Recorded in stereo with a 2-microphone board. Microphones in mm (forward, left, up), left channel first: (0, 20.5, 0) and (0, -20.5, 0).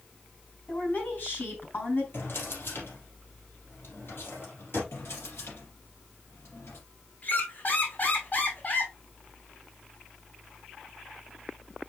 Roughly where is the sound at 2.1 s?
Left.